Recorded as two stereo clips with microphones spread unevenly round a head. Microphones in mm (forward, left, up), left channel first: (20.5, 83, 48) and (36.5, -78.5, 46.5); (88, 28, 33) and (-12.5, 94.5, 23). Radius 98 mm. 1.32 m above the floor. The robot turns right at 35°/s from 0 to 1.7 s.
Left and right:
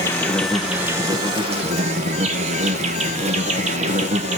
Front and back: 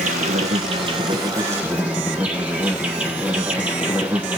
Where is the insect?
170° left, 1.5 m; by 4.4 s 135° right, 1.5 m.